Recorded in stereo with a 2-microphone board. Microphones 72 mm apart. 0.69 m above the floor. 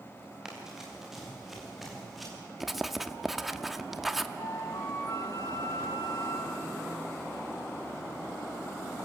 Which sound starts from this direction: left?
A flute, at 4.4 s.